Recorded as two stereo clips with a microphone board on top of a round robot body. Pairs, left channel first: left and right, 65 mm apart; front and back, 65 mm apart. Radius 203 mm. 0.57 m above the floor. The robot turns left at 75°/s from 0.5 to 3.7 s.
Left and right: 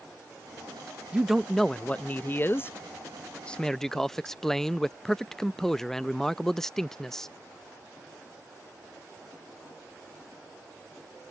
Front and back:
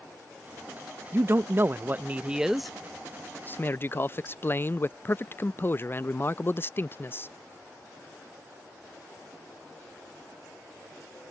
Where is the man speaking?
155° right; by 7.3 s 10° left.